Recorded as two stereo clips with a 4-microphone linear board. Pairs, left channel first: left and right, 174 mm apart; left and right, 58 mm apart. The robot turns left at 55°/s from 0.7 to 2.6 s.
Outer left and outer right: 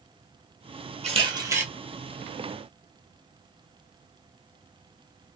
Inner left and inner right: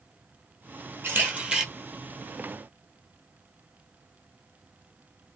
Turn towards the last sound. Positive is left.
turn(degrees=140)